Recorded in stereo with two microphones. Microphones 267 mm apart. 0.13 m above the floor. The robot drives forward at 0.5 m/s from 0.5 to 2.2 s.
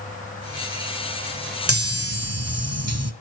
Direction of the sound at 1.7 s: 60° right (ahead or behind).